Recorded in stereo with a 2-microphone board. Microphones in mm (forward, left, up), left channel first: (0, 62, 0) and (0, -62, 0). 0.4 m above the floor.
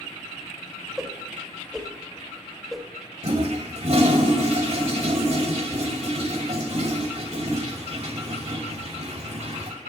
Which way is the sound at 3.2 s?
55° right (ahead or behind).